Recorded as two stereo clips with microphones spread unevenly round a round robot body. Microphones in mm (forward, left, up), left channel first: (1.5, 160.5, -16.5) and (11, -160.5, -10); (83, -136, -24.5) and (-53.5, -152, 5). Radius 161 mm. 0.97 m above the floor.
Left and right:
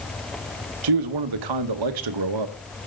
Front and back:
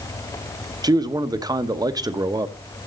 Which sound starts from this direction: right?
A man speaking, at 0.8 s.